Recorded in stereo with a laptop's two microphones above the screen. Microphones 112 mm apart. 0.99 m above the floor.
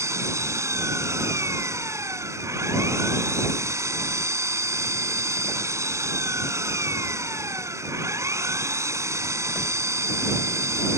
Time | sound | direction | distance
0.0 | an engine running | 25° right (ahead or behind) | ?